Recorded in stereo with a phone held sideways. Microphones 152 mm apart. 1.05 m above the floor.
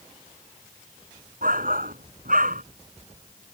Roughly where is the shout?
Right.